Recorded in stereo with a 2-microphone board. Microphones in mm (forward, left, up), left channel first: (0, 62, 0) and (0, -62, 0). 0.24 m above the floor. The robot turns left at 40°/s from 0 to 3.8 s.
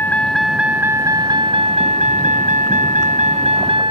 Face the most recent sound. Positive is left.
turn(degrees=-135)